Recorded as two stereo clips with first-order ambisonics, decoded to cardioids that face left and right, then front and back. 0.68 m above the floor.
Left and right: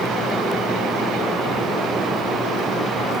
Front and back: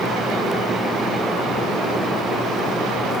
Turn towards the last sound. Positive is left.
No sound to turn to.